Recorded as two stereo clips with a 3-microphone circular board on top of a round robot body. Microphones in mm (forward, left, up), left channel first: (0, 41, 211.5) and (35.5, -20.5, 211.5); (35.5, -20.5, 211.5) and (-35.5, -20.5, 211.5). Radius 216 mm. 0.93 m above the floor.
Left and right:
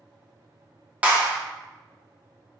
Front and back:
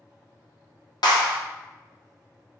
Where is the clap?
10° left, 1.4 m.